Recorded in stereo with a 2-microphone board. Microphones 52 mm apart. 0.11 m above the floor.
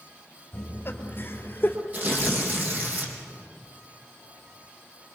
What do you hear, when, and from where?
0.5 s laughter: 50° left (ahead or behind), 2.5 m; by 1.8 s 40° left (ahead or behind), 3 m
1.9 s tearing paper: 35° right (ahead or behind), 4 m